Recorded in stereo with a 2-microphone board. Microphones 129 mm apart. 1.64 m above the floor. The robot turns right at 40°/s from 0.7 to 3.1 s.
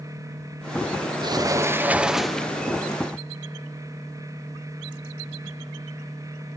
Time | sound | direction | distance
1.2 | a sliding door | 45° right | 0.6 m